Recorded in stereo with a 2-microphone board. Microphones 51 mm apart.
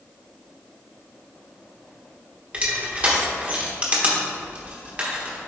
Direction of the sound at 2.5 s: 25° right (ahead or behind).